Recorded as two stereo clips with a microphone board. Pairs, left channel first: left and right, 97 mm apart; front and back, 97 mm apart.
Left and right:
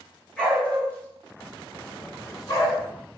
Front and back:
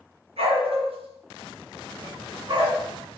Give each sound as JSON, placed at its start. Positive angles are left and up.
{"t": 0.4, "sound": "a dog barking", "azimuth_deg": 170, "distance_m": 5.0}